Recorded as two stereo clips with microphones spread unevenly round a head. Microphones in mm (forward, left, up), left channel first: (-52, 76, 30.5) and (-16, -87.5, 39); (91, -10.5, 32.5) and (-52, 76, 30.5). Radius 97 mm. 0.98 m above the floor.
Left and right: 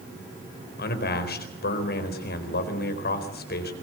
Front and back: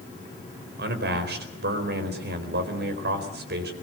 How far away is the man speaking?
About 4 m.